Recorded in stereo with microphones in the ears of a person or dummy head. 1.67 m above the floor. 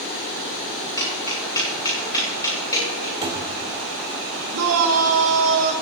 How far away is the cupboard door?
About 1.7 m.